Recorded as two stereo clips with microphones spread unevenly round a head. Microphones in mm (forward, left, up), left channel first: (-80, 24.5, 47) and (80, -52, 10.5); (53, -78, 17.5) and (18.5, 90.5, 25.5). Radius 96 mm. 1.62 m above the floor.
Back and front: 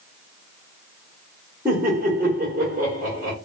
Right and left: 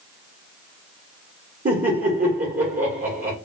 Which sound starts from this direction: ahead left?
Laughter, at 1.6 s.